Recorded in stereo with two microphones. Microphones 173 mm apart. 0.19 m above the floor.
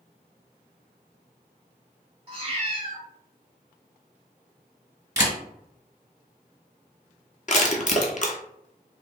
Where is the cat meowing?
35° right (ahead or behind), 1.0 m.